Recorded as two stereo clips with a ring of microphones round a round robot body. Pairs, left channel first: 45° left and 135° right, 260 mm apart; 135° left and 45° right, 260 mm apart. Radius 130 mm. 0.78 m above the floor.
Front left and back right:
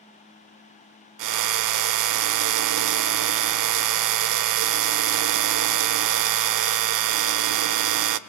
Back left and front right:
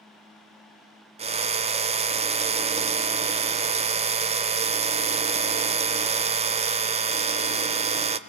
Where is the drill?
115° right, 0.9 m.